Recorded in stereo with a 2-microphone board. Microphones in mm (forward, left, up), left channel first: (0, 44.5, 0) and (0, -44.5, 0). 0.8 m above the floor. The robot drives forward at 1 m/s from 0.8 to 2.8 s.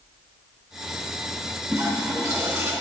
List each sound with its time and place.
1.7 s a toilet flushing: 40° right (ahead or behind), 3.5 m; by 2.7 s 30° right (ahead or behind), 4 m